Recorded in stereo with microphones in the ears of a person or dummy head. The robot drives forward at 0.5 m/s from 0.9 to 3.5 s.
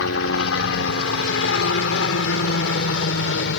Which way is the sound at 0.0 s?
70° left (ahead or behind).